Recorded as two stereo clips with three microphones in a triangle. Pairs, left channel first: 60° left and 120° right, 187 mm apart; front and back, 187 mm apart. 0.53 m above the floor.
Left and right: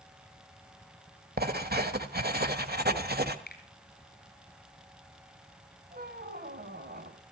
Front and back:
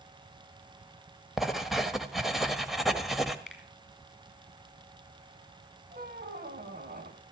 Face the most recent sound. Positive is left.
turn(degrees=-150)